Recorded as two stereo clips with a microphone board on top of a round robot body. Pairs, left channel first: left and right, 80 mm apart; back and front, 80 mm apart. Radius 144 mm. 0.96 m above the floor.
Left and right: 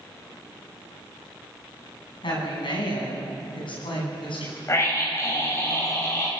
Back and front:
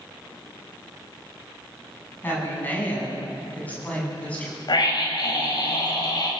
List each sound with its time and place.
2.2 s a woman speaking: 115° left, 9.5 m; by 4.6 s 105° left, 9.5 m
4.7 s a scream: 145° left, 7.5 m